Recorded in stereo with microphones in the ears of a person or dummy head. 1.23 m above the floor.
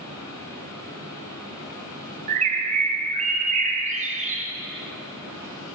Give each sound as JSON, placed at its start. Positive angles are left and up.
{"t": 0.0, "sound": "a fan", "side_deg": 20, "distance_m": 3.5}
{"t": 2.3, "sound": "a bird", "side_deg": -30, "distance_m": 1.1}